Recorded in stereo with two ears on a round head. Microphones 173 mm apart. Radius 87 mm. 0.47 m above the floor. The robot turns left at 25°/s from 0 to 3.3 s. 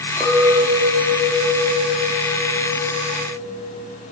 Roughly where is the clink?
Ahead.